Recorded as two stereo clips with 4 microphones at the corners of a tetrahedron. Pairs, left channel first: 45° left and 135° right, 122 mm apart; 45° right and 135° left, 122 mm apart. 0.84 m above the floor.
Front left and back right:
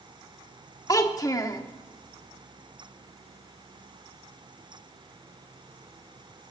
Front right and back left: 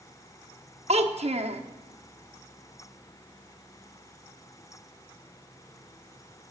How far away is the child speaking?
About 0.9 m.